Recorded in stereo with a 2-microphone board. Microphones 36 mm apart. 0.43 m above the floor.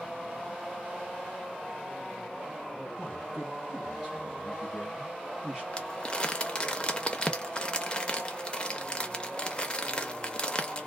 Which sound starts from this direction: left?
Crumpling, at 5.7 s.